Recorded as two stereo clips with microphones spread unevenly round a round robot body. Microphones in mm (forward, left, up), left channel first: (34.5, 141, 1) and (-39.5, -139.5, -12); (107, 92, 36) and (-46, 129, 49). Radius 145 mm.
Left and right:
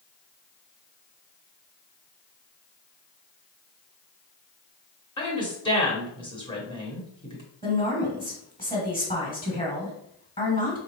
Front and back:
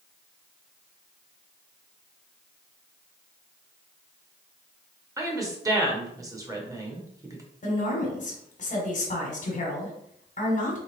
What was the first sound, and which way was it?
A woman speaking, 125° left.